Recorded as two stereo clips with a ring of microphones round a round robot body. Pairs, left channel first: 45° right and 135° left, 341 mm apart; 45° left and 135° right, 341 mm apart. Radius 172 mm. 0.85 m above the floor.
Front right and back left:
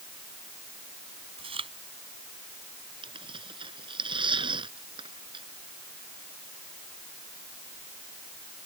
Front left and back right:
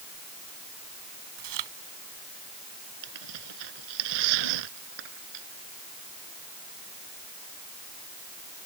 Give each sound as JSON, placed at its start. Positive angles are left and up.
{"t": 1.4, "sound": "chewing", "azimuth_deg": -150}
{"t": 3.0, "sound": "tearing paper", "azimuth_deg": -150}